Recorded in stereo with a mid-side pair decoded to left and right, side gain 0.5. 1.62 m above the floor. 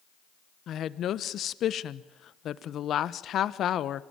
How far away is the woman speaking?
About 1.2 m.